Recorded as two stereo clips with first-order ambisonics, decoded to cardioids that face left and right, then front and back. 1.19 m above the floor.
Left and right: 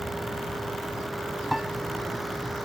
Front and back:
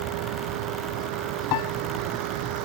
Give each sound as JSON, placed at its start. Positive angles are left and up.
{"t": 0.0, "sound": "a vehicle", "azimuth_deg": -175}
{"t": 1.5, "sound": "a piano", "azimuth_deg": 0}